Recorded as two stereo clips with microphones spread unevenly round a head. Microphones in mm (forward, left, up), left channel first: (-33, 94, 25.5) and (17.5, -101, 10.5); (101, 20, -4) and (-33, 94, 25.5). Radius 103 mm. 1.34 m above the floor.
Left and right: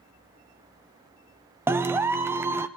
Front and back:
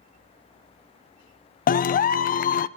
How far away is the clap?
About 0.5 m.